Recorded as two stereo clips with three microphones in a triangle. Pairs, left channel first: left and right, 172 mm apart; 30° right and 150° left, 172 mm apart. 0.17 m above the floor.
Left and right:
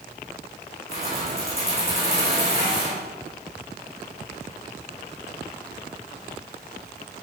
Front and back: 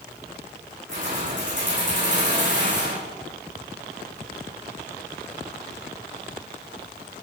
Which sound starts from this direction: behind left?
Keys jangling, at 0.9 s.